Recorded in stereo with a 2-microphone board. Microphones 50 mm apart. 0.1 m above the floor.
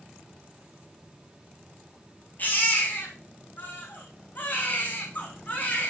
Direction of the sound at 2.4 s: 40° left (ahead or behind).